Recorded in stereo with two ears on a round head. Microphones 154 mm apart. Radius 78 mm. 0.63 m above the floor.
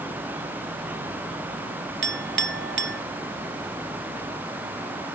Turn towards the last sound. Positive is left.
turn(degrees=-70)  # may be behind; listen again after turning